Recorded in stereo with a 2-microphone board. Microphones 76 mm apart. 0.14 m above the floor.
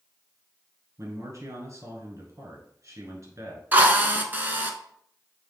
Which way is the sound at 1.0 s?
45° right (ahead or behind).